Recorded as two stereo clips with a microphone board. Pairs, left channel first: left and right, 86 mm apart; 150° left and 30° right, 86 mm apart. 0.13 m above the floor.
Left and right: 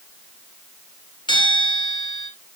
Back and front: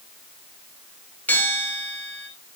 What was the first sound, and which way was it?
A bell, 80° left.